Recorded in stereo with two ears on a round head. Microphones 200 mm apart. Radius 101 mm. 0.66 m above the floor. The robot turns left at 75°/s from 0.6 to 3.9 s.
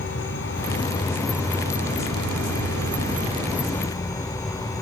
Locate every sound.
0.0 s an insect: 50° left, 1.1 m; by 4.8 s 160° left, 1.1 m